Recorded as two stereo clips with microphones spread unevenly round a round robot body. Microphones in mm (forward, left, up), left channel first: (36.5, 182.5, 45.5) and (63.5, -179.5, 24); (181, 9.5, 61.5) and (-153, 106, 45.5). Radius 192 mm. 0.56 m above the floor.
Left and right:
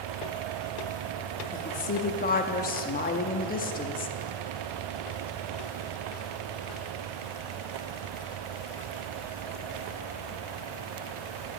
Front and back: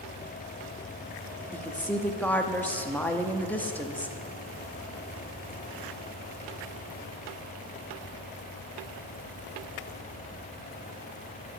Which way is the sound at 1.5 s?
70° left.